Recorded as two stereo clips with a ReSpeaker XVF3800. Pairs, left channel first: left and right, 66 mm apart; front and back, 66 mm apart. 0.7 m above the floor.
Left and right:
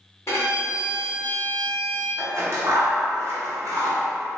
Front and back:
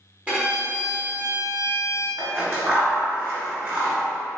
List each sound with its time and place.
0.3 s a violin: 115° left, 1.5 m
2.2 s scissors: 120° right, 1.3 m